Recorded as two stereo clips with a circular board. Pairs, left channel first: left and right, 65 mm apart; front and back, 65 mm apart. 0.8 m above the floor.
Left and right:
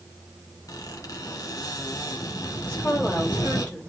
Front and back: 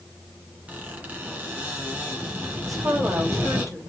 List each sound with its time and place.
0.7 s a squeak: 115° left, 2 m
2.6 s a woman speaking: 150° left, 5 m